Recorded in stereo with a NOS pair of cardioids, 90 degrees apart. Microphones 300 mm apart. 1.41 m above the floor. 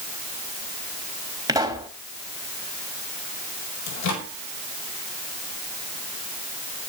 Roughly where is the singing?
No singing in this recording.